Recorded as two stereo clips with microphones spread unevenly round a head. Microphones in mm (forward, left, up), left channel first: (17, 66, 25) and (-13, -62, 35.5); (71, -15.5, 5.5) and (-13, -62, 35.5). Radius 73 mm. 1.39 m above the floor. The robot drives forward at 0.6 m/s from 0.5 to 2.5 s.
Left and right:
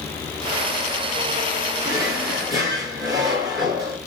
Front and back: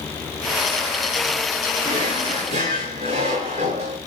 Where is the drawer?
165° right, 6 m.